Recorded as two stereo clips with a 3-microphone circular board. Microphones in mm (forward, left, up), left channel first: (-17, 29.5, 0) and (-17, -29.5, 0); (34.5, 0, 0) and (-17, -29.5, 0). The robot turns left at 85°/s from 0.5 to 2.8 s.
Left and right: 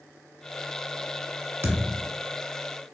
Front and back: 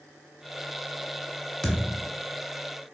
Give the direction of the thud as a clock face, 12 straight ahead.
2 o'clock.